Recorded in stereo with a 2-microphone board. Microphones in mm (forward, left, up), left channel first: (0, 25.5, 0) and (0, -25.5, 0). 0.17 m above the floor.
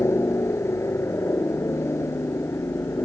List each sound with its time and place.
0.0 s a helicopter: 60° left (ahead or behind)